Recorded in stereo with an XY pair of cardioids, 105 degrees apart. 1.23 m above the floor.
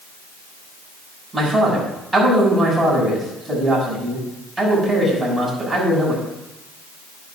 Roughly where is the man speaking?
Ahead.